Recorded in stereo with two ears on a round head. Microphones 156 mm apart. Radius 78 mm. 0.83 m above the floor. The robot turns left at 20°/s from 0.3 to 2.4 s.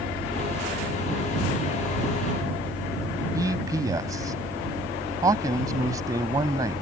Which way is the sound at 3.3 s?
20° right (ahead or behind).